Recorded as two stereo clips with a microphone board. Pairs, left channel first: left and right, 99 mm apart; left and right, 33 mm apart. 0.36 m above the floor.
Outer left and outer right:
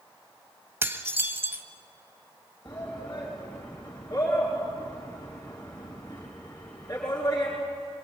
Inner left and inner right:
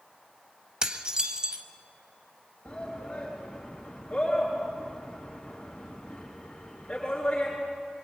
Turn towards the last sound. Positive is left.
turn(degrees=35)  # may be behind; listen again after turning